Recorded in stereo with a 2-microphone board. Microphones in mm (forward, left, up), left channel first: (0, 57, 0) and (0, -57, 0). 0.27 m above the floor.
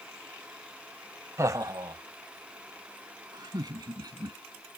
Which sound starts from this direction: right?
Laughter, at 1.4 s.